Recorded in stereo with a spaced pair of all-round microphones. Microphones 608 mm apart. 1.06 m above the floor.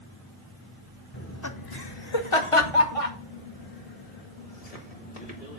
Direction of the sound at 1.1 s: 20° left (ahead or behind).